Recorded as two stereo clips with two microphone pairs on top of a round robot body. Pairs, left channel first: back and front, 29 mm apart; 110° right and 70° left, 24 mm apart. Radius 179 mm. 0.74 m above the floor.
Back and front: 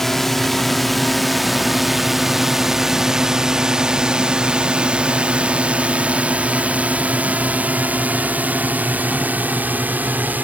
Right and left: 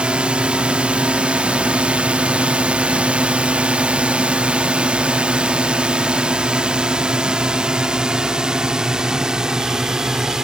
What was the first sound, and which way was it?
A drone, 100° left.